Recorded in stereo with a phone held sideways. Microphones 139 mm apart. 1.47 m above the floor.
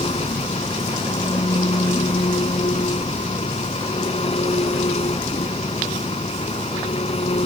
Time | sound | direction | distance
0.0 | an engine running | 45° left (ahead or behind) | ?